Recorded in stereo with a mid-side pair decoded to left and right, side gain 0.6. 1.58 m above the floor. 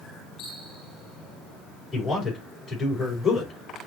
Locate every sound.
1.9 s a man speaking: 20° left, 5 m